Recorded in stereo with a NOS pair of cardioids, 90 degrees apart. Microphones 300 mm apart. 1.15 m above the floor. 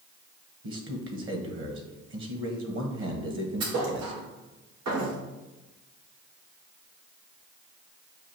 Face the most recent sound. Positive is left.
turn(degrees=-70)